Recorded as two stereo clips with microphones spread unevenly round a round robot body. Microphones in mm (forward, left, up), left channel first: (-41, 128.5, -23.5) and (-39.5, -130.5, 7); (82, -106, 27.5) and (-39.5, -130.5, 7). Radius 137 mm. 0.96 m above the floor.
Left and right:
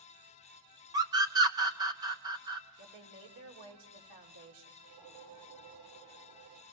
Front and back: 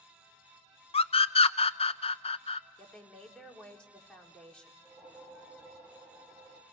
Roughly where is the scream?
Ahead.